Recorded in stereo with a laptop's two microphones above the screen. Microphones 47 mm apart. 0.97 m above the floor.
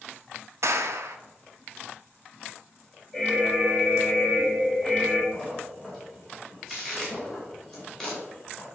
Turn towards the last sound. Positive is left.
turn(degrees=10)  # may be behind; listen again after turning